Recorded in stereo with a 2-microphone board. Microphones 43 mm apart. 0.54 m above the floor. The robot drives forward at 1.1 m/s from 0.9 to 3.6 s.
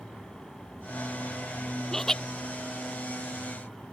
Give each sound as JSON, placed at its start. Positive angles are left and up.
{"t": 1.9, "sound": "laughter", "side_deg": 10}